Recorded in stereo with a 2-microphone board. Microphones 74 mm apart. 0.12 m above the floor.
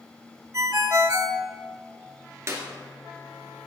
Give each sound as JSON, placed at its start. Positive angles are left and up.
{"t": 0.5, "sound": "a ringtone", "side_deg": -50, "distance_m": 0.7}
{"t": 2.5, "sound": "a clap", "side_deg": -40, "distance_m": 1.9}